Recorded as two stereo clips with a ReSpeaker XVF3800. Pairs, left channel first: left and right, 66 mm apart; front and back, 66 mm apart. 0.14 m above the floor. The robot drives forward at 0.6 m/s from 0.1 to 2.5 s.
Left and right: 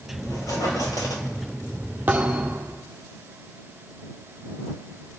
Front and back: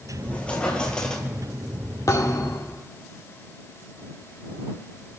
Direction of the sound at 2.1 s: 30° right.